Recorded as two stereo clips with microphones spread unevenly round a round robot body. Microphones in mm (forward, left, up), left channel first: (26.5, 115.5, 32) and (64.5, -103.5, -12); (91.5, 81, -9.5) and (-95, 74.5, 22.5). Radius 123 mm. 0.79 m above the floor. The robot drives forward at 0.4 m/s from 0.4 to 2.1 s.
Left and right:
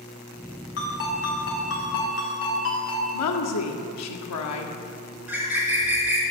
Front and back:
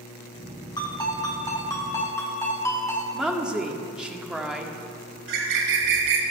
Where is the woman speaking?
95° left, 1.7 m.